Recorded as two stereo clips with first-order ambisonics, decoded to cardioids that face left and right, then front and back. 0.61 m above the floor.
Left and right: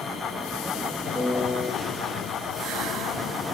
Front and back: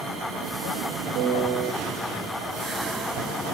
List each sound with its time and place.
1.1 s a piano: 175° right, 1.0 m